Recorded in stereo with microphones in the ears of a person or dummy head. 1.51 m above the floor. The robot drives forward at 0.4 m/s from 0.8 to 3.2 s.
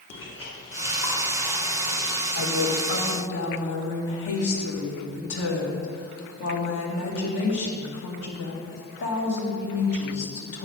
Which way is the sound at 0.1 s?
35° left (ahead or behind).